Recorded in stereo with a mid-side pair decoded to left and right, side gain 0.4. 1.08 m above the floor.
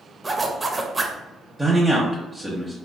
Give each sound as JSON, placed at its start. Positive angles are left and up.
{"t": 0.2, "sound": "a zipper", "azimuth_deg": -25, "distance_m": 0.5}
{"t": 1.6, "sound": "a man speaking", "azimuth_deg": -15, "distance_m": 0.7}